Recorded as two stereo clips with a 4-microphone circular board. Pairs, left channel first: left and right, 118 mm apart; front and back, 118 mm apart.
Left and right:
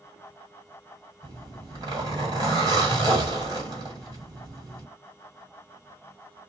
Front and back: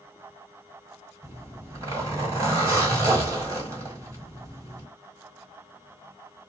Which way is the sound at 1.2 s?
125° right.